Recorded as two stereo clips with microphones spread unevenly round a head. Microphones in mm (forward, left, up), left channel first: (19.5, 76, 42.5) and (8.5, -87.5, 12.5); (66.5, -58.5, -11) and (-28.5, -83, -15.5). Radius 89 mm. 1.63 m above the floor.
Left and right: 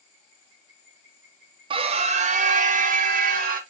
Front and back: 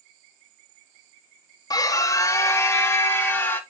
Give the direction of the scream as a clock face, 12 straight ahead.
1 o'clock.